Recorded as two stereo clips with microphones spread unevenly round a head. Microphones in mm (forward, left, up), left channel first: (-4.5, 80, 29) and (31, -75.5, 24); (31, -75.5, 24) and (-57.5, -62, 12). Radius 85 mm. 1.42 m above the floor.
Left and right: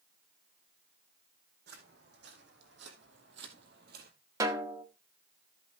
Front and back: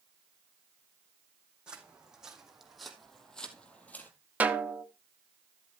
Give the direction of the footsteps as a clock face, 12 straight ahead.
4 o'clock.